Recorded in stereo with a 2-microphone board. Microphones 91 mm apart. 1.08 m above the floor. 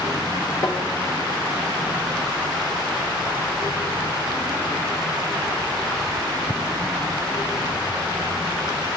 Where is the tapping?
40° left (ahead or behind), 1.2 m.